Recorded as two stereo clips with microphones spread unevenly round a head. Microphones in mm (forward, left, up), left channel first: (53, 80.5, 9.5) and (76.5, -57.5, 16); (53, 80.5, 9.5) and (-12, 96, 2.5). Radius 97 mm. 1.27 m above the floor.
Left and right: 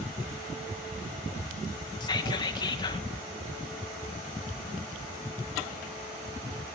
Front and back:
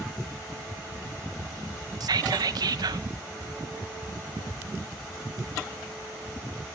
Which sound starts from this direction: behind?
Whispering, at 2.0 s.